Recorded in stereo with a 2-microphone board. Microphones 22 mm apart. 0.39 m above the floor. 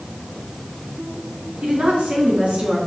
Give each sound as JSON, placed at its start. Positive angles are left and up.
{"t": 1.6, "sound": "a woman speaking", "side_deg": -65, "distance_m": 3.5}